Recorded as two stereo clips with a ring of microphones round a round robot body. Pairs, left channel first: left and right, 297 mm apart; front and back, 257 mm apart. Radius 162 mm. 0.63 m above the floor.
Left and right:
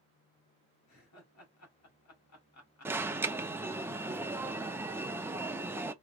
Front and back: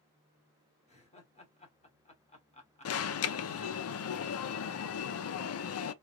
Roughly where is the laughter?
Ahead left.